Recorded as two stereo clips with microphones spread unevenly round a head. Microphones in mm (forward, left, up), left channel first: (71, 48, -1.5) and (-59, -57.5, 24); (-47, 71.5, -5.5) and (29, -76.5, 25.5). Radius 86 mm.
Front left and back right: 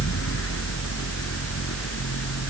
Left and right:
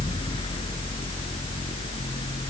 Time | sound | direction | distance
0.0 | a fan | 55° left | ?